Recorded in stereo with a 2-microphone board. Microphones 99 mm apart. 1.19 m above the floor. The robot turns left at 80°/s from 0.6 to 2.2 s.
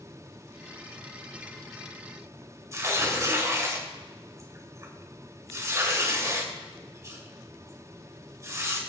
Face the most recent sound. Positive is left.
turn(degrees=-30)  # may be behind; listen again after turning